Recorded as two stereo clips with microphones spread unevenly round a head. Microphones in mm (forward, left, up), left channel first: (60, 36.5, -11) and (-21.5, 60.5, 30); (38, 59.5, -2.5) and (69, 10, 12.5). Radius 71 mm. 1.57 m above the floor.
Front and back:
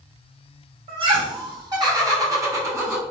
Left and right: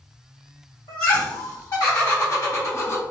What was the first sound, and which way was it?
Laughter, 145° left.